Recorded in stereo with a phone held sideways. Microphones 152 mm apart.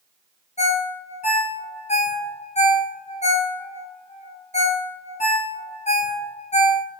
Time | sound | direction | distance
0.6 | a ringtone | 45° left (ahead or behind) | 0.6 m